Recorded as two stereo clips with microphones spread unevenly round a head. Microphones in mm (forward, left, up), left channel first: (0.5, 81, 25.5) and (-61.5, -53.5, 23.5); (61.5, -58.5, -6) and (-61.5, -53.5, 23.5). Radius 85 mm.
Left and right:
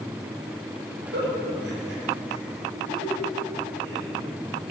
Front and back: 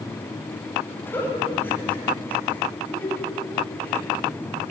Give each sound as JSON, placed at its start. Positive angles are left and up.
{"t": 1.1, "sound": "a giggle", "azimuth_deg": -80, "distance_m": 7.5}